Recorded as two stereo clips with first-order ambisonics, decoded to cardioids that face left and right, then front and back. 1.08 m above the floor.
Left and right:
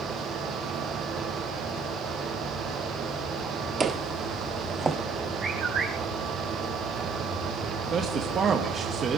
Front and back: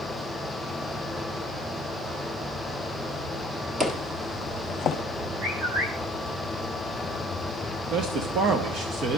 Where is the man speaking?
145° right, 1.1 m.